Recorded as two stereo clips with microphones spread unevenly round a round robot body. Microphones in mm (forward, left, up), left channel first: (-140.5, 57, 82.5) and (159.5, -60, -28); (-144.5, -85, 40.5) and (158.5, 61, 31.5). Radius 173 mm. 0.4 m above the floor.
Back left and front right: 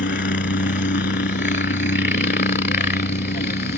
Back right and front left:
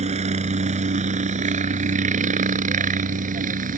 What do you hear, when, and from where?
0.0 s a helicopter: 95° left